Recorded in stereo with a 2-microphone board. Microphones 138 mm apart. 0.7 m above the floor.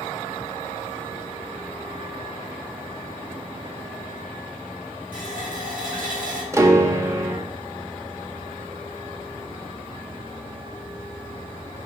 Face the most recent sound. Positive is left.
turn(degrees=-20)  # may be behind; listen again after turning